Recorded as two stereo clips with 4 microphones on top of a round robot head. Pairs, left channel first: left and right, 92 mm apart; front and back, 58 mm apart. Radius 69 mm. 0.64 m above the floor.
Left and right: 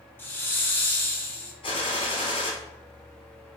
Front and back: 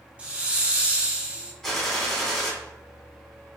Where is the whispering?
I don't hear whispering.